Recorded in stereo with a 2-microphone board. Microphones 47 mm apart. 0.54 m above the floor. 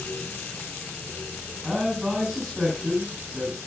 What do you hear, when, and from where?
1.6 s a man speaking: 10° left (ahead or behind), 7 m